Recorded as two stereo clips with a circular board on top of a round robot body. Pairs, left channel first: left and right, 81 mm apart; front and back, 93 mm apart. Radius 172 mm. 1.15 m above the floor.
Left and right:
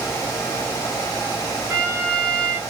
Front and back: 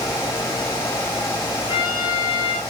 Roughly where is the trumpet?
Ahead right.